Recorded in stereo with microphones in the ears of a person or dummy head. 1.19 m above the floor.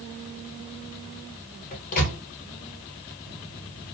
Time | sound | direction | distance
1.7 | a microwave | 45° left (ahead or behind) | 1.0 m